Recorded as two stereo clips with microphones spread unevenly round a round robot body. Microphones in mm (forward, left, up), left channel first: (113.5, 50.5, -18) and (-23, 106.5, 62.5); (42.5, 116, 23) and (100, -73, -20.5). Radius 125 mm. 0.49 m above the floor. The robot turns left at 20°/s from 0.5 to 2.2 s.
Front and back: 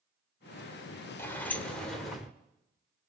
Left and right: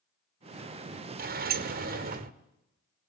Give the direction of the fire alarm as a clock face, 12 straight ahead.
No fire alarm in this recording.